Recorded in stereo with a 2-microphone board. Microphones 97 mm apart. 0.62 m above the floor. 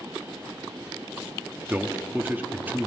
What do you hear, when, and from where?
1.7 s a man speaking: 20° right (ahead or behind), 1.1 m